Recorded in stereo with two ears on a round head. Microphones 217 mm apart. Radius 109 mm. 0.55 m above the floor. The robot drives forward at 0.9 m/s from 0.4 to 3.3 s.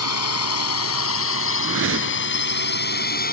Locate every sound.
0.0 s a drone: 75° left (ahead or behind); by 3.3 s 40° left (ahead or behind)
1.6 s a whoosh: 60° right (ahead or behind); by 2.4 s 55° right (ahead or behind)